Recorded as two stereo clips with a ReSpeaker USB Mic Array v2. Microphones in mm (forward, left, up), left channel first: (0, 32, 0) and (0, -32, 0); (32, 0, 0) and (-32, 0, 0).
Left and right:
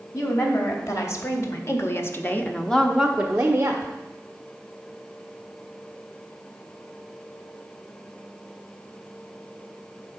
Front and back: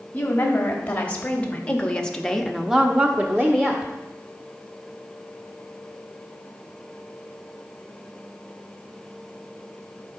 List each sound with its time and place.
0.1 s a woman speaking: 60° left, 3 m; by 3.9 s 130° right, 1.4 m